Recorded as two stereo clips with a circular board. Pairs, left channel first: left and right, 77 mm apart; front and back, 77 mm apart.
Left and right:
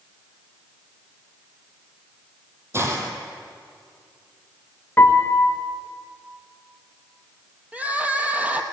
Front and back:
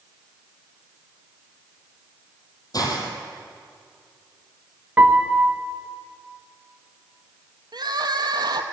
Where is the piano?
130° left, 0.9 m.